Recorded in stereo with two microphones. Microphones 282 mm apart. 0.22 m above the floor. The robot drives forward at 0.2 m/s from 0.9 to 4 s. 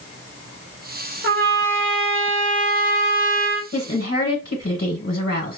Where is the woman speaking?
50° left (ahead or behind), 1.7 m.